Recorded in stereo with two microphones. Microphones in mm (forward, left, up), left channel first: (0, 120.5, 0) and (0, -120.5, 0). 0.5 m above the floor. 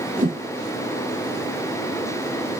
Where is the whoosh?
35° right (ahead or behind), 1.4 m.